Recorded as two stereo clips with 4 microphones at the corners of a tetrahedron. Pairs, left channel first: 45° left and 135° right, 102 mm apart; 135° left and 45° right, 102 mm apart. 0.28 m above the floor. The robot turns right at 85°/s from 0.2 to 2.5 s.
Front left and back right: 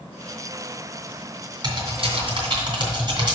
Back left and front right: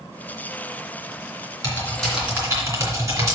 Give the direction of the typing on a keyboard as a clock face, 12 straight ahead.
6 o'clock.